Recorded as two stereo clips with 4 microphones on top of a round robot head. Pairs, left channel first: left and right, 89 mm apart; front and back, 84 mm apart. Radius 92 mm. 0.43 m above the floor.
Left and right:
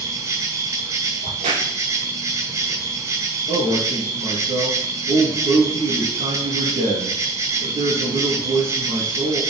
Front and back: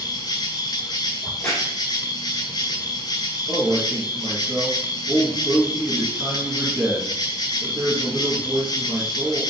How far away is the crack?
About 3.5 m.